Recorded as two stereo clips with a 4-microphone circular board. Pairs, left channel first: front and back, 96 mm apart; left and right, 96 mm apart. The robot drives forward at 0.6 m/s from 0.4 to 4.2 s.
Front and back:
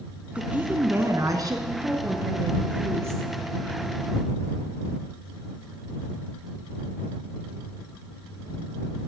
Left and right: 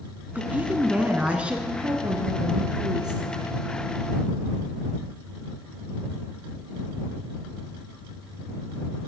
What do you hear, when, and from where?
0.3 s a woman speaking: 130° right, 1.0 m; by 1.6 s 160° right, 1.4 m
1.7 s a woman speaking: 95° right, 1.8 m; by 3.2 s 125° right, 2 m